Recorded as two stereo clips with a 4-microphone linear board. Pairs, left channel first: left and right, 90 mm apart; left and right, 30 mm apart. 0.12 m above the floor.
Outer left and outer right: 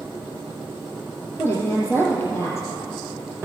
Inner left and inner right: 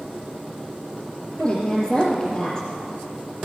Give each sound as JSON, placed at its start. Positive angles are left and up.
{"t": 1.4, "sound": "a woman speaking", "side_deg": 30, "distance_m": 3.5}